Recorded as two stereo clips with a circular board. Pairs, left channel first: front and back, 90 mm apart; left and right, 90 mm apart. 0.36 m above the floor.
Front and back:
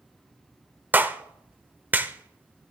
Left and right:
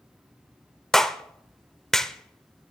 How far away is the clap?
About 0.6 m.